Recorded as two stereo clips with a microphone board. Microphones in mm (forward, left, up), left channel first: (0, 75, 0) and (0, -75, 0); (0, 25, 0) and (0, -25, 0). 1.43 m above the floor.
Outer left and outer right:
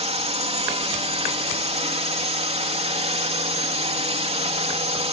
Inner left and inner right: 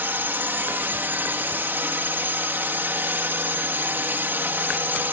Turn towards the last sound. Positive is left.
turn(degrees=-40)  # may be behind; listen again after turning